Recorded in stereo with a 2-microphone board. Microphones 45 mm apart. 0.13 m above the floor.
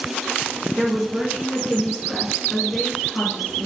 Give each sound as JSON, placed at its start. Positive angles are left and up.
{"t": 0.8, "sound": "a woman speaking", "side_deg": -30, "distance_m": 1.6}